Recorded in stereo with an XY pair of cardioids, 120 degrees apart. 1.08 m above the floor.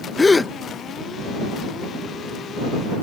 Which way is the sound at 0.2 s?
20° left.